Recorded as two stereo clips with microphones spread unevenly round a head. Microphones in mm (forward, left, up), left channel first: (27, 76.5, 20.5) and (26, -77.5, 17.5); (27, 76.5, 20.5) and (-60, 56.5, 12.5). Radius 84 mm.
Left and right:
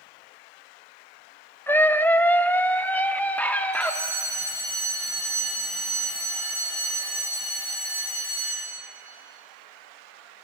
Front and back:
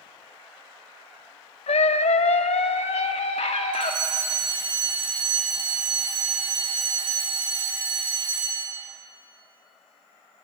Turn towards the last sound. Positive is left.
turn(degrees=160)